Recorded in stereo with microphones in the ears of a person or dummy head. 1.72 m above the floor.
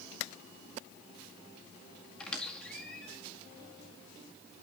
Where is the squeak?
5° left (ahead or behind), 1.9 m.